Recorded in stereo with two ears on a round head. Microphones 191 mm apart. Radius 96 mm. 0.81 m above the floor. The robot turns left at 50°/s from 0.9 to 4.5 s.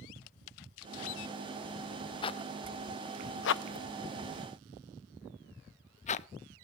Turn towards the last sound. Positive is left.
turn(degrees=35)  # may be behind; listen again after turning